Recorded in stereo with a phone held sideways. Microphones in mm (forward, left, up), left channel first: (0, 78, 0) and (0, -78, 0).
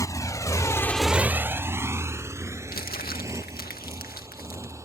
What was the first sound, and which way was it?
A motorcycle, 20° left (ahead or behind).